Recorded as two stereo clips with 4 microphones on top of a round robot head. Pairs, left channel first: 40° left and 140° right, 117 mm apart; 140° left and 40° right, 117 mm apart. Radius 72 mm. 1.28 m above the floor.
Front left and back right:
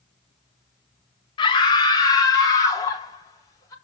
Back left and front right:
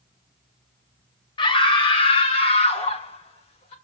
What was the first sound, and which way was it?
A scream, 90° left.